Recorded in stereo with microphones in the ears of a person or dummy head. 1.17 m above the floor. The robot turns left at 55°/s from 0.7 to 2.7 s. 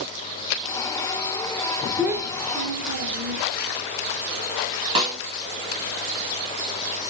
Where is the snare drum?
25° right (ahead or behind), 0.8 m.